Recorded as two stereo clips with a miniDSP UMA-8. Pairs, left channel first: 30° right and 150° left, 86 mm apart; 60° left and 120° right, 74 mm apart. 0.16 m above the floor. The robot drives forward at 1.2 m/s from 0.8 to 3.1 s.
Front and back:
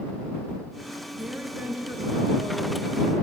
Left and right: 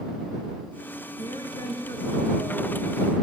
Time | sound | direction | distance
1.2 | a woman speaking | 70° left | 3 m